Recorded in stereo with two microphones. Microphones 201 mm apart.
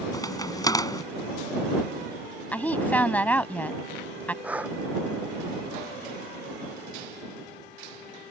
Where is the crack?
20° left (ahead or behind).